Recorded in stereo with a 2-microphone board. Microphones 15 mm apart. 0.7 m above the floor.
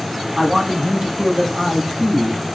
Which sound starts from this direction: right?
A man speaking, at 0.4 s.